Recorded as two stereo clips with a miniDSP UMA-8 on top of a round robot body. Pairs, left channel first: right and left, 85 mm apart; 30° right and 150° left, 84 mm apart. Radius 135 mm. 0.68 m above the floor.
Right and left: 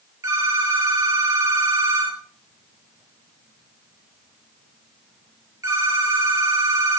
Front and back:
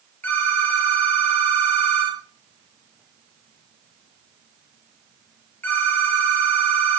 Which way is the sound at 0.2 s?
40° left.